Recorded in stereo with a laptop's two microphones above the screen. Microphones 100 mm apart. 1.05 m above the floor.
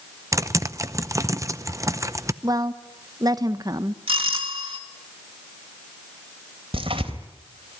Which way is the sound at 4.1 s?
65° right (ahead or behind).